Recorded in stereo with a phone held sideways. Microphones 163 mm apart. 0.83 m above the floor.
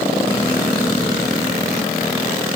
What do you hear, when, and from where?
Only background noise.